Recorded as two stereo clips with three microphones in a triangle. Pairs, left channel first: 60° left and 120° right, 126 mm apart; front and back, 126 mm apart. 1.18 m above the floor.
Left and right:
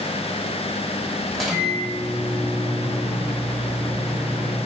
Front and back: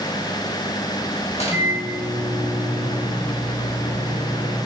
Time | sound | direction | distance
1.3 | a microwave | 30° right | 1.0 m